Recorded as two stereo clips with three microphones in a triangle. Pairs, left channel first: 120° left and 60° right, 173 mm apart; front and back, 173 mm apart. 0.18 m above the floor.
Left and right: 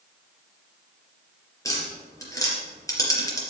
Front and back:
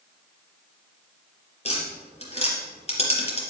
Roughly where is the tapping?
Ahead left.